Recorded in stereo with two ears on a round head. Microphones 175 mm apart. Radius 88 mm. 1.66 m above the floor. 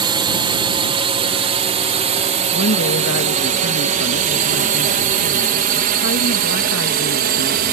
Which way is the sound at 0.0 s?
25° right (ahead or behind).